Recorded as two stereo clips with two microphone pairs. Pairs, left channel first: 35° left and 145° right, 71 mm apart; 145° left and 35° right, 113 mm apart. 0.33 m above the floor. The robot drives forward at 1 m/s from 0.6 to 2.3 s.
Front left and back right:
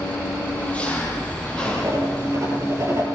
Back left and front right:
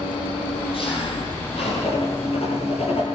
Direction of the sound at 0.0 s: 105° left.